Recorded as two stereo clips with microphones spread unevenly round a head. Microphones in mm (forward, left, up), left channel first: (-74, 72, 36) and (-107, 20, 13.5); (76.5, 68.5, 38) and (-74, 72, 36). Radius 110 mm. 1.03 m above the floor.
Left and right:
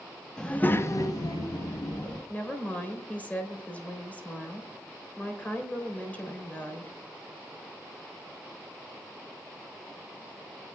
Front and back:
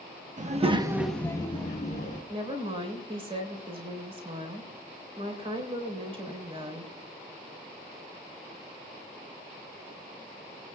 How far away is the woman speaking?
About 4 m.